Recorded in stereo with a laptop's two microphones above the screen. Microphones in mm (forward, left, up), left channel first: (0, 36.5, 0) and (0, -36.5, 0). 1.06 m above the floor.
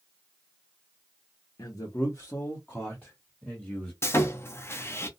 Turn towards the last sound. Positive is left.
turn(degrees=35)  # may be behind; listen again after turning